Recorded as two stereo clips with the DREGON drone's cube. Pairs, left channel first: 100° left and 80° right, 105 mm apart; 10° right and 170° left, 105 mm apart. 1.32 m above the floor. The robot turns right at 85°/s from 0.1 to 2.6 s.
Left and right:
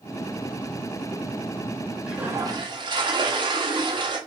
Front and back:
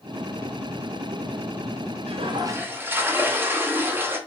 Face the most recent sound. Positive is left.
turn(degrees=-120)